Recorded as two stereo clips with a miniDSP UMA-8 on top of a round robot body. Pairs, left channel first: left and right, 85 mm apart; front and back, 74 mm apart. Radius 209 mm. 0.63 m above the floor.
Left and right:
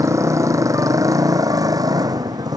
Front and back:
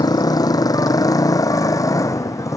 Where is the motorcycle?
35° right; by 2.6 s 45° right.